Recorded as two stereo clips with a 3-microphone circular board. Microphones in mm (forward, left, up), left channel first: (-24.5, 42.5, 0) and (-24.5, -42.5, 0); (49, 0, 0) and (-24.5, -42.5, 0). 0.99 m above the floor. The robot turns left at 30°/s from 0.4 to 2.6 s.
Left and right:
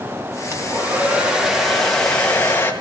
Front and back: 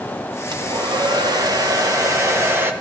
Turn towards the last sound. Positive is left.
turn(degrees=155)